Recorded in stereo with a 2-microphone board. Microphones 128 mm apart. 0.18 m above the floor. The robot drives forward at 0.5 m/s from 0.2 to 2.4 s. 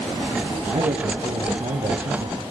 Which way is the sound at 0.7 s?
60° right (ahead or behind).